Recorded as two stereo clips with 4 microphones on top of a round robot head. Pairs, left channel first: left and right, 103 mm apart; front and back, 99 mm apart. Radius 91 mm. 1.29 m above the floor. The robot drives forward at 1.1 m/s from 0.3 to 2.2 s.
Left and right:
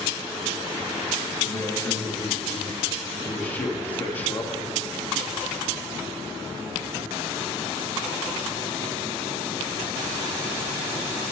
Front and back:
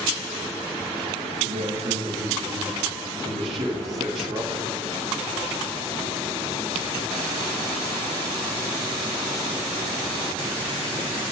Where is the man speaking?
155° left, 1.5 m; by 4.7 s 165° left, 2.5 m.